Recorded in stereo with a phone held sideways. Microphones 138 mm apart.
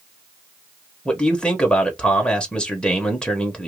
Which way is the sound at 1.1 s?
5° left (ahead or behind).